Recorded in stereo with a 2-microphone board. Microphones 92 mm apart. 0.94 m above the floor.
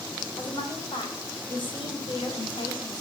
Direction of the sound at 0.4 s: 60° left (ahead or behind).